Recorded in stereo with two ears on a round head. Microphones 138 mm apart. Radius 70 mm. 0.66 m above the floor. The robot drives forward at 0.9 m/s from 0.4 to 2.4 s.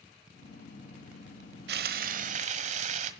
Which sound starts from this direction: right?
Frying, at 1.7 s.